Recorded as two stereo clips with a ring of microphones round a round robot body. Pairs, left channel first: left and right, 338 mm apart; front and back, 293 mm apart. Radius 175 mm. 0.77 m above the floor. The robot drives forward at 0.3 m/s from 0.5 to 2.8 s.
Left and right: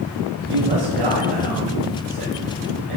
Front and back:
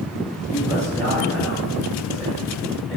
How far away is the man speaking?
About 4 m.